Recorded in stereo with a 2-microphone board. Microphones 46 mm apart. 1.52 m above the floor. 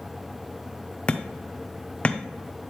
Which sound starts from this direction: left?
Hammering, at 1.1 s.